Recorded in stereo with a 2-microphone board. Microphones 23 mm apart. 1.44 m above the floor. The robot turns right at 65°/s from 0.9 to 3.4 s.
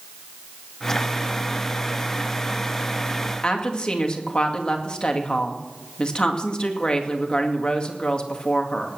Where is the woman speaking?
40° left (ahead or behind), 2 m.